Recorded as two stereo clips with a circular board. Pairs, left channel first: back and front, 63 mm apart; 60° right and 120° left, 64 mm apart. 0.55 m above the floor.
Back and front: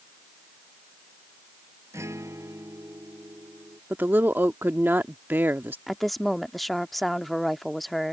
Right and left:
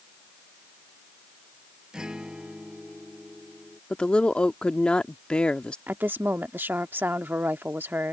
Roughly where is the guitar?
Ahead left.